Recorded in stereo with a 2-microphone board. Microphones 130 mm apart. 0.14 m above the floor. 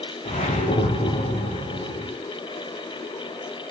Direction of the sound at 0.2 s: 60° left (ahead or behind).